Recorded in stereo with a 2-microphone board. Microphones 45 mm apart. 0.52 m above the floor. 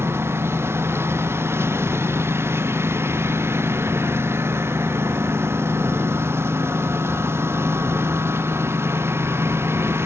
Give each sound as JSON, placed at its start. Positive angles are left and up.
{"t": 0.0, "sound": "a lawn mower", "side_deg": -70}